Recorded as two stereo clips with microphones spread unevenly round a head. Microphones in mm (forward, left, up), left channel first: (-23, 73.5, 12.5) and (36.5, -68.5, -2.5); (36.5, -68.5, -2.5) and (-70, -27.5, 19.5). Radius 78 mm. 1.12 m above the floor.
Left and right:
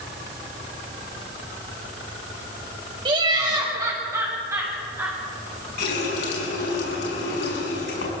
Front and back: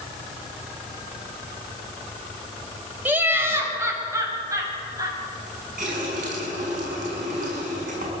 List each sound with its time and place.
3.0 s laughter: 130° right, 5 m; by 5.2 s 145° right, 7.5 m
5.8 s a running tap: 135° left, 6.5 m